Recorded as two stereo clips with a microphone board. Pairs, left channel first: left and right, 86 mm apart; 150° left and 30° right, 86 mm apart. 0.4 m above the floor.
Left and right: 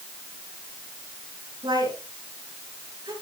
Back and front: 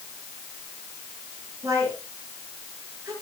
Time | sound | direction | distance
1.6 | a woman speaking | 80° right | 7.5 m